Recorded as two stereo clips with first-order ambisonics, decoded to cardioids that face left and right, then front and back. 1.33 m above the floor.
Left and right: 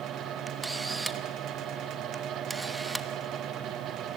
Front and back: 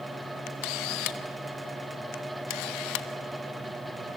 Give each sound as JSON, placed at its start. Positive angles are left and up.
{"t": 0.5, "sound": "a camera shutter", "azimuth_deg": -10, "distance_m": 1.1}